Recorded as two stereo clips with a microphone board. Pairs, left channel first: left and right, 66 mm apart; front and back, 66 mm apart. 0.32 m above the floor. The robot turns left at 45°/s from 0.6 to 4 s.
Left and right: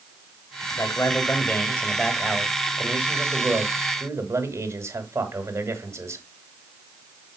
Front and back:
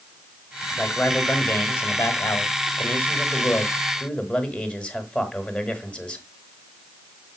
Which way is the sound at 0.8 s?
75° left.